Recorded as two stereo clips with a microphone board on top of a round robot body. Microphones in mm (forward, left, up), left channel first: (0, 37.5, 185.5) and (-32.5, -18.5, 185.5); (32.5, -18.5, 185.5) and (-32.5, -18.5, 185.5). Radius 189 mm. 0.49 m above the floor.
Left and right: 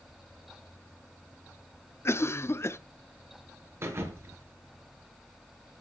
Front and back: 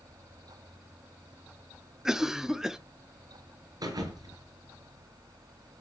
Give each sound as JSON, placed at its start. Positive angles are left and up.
{"t": 2.0, "sound": "a cough", "azimuth_deg": 100, "distance_m": 1.2}
{"t": 3.8, "sound": "a thud", "azimuth_deg": -170, "distance_m": 4.0}